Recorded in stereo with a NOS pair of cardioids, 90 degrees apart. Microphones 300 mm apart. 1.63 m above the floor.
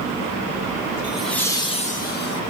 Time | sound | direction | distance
1.0 | laughter | 5° right | 1.6 m